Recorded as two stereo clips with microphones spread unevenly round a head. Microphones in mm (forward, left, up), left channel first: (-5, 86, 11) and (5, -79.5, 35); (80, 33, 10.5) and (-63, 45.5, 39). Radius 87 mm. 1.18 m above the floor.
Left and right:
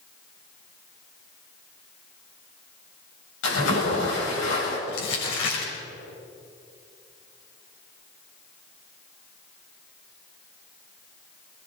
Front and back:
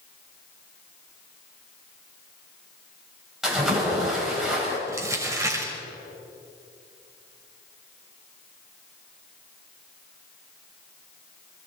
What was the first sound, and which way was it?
A splash, 85° left.